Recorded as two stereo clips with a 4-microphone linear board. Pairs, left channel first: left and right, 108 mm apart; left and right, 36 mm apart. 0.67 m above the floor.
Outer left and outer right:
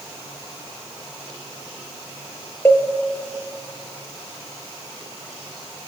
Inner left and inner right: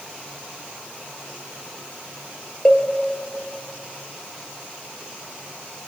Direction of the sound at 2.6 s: 20° left (ahead or behind).